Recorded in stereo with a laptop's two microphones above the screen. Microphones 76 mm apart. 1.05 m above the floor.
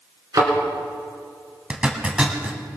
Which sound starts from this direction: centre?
A zipper, at 1.7 s.